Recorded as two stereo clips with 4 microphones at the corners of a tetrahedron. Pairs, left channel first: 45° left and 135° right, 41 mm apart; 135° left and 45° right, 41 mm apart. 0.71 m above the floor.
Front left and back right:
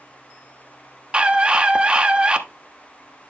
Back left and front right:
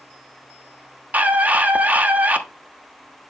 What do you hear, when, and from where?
1.1 s a scream: 80° right, 1.1 m